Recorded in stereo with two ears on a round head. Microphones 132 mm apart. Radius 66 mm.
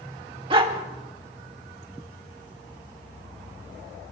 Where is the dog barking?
35° right (ahead or behind), 1.6 m.